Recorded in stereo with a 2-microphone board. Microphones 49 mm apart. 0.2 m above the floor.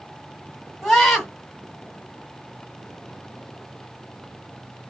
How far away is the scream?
About 1.6 m.